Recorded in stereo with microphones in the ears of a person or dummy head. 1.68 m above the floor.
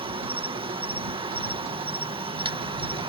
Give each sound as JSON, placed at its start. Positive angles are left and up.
{"t": 0.0, "sound": "an insect", "side_deg": -25}